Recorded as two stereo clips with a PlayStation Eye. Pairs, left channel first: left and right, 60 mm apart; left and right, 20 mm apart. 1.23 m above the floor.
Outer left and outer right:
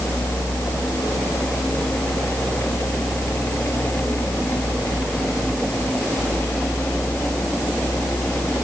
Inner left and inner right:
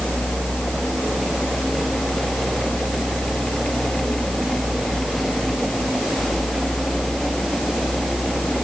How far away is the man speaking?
No man speaking in this recording.